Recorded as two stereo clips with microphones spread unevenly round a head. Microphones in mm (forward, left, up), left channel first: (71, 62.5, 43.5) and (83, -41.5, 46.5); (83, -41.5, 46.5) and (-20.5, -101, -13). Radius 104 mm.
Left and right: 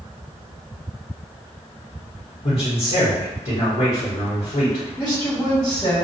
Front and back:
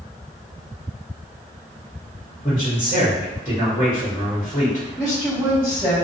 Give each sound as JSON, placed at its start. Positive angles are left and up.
{"t": 2.4, "sound": "a man speaking", "azimuth_deg": 90, "distance_m": 1.1}
{"t": 5.0, "sound": "a woman speaking", "azimuth_deg": 145, "distance_m": 1.4}